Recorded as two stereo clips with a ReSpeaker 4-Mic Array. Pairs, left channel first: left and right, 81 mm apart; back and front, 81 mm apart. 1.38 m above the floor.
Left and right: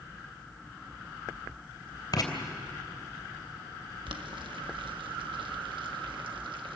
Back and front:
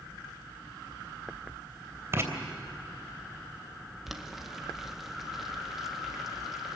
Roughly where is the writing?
Ahead left.